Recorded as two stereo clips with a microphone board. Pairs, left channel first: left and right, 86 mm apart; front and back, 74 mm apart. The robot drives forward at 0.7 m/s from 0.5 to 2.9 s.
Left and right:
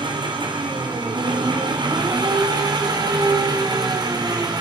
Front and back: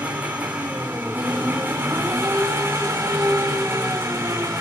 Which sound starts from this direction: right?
An engine running, at 0.0 s.